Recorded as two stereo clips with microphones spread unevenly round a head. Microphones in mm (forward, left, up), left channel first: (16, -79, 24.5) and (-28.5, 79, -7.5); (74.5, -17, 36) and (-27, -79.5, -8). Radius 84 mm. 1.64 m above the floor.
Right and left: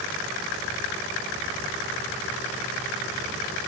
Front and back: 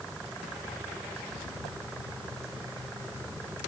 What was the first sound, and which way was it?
Only background noise.